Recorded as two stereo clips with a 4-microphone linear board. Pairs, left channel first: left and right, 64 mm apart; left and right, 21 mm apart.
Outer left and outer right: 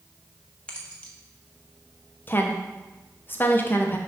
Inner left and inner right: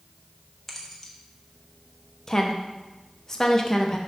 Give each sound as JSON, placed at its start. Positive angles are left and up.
{"t": 0.7, "sound": "keys jangling", "side_deg": 15, "distance_m": 1.2}
{"t": 2.3, "sound": "a woman speaking", "side_deg": 30, "distance_m": 1.0}